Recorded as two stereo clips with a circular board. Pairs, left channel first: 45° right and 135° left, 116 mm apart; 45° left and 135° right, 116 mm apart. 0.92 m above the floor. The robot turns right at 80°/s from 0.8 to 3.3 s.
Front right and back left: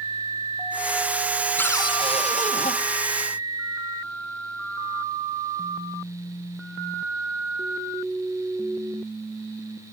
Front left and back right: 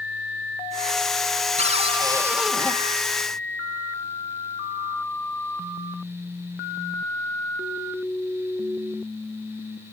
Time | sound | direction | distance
1.6 | a cupboard door | 120° right | 1.4 m